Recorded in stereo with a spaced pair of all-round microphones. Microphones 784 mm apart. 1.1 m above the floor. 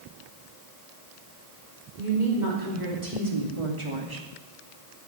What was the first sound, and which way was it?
A woman speaking, 70° right (ahead or behind).